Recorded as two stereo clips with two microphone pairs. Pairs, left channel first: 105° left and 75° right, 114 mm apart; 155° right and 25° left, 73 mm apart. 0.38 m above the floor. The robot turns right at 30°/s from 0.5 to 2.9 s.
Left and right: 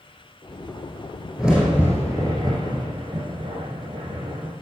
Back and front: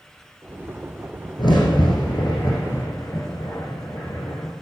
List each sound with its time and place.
1.4 s a crack: 155° right, 5.5 m; by 4.5 s 110° right, 5.5 m